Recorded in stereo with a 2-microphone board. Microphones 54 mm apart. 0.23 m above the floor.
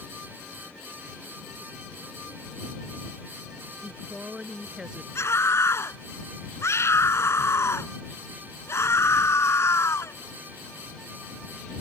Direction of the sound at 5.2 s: 60° left (ahead or behind).